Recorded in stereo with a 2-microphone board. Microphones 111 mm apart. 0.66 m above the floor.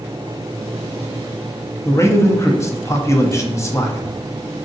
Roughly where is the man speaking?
Left.